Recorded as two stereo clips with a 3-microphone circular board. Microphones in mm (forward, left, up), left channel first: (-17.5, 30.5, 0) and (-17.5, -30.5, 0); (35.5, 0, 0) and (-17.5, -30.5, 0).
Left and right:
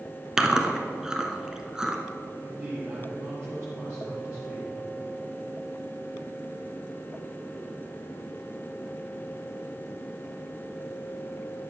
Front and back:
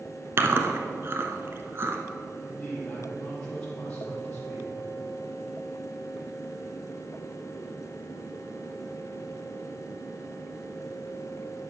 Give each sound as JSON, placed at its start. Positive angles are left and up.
{"t": 0.4, "sound": "chewing", "azimuth_deg": -165, "distance_m": 1.2}
{"t": 2.4, "sound": "a man speaking", "azimuth_deg": -40, "distance_m": 3.5}